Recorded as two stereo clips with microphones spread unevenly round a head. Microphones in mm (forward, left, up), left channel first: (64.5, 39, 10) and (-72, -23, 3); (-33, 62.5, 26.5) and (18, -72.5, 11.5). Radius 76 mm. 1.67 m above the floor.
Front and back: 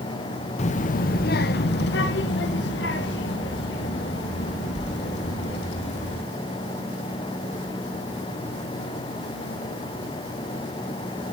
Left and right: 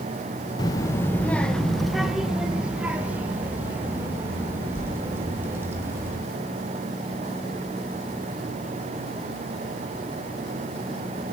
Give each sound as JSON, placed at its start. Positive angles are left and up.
{"t": 0.6, "sound": "a child speaking", "azimuth_deg": 55, "distance_m": 0.7}